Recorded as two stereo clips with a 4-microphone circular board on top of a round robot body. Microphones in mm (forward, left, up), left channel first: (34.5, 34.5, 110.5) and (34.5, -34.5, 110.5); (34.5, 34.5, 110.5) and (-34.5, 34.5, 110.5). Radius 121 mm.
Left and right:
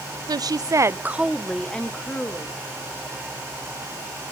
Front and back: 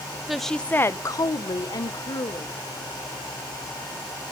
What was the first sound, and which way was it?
A woman speaking, 95° right.